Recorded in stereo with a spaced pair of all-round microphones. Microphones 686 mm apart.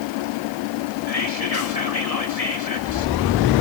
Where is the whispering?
60° left (ahead or behind), 4.5 m.